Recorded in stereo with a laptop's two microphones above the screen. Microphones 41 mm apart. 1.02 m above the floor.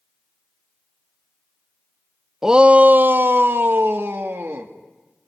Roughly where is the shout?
Centre.